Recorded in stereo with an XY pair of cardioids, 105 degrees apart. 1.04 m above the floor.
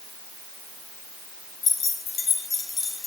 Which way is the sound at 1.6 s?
55° left.